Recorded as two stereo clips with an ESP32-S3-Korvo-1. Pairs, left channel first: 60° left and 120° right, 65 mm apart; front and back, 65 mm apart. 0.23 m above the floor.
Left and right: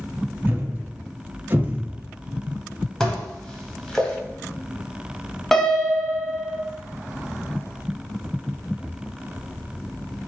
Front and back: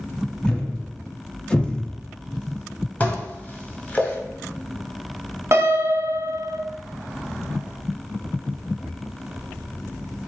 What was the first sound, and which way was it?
A thud, 75° right.